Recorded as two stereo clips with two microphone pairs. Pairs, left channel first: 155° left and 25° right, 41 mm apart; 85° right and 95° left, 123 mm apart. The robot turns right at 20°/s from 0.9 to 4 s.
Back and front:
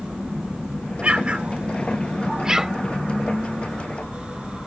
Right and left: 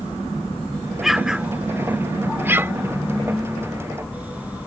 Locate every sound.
1.0 s an explosion: 10° left; by 2.7 s 45° left